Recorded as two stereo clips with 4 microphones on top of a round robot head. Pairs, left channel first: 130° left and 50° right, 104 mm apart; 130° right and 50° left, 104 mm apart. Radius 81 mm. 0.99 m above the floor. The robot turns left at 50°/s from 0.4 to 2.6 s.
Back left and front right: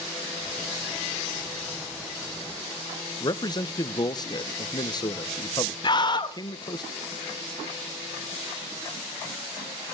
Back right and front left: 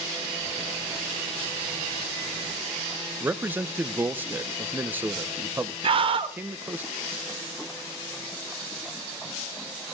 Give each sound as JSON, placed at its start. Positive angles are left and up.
{"t": 3.2, "sound": "a man speaking", "azimuth_deg": 115, "distance_m": 0.7}
{"t": 5.8, "sound": "a scream", "azimuth_deg": 85, "distance_m": 1.4}